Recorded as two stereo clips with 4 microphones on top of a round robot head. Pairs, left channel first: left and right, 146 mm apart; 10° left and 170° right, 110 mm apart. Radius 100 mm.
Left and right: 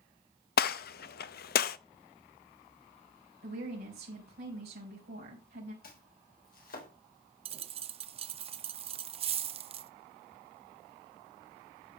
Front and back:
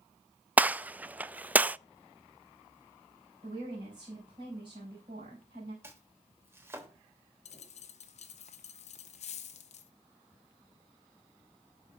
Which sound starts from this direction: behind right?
A woman speaking, at 3.4 s.